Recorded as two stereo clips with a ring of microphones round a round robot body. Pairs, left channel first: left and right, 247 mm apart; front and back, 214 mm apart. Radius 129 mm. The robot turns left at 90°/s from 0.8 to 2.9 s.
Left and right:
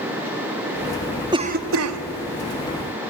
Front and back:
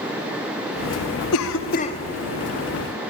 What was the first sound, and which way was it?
A cough, 15° right.